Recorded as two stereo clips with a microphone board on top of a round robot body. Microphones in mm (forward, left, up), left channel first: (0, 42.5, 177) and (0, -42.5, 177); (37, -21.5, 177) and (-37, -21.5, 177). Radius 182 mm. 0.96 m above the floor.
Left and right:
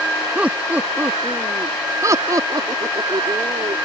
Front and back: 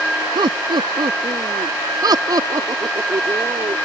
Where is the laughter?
170° right; by 3.8 s 130° right.